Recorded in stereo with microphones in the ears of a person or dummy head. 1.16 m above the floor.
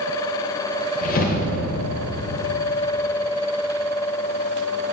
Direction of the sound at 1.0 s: 45° left (ahead or behind).